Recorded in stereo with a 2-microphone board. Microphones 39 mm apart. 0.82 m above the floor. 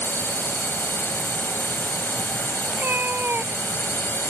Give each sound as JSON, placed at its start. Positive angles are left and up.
{"t": 0.0, "sound": "a drone", "side_deg": 70}
{"t": 2.7, "sound": "a cat meowing", "side_deg": -55}